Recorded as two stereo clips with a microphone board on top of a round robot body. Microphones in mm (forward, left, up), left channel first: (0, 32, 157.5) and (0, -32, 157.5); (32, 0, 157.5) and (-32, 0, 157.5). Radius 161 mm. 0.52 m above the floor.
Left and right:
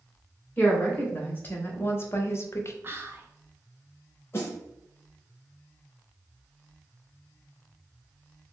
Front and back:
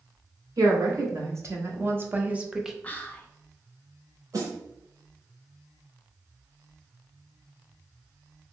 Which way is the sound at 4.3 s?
145° left.